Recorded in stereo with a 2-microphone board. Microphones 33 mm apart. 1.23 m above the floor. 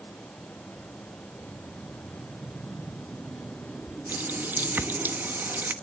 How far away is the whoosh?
About 4.5 m.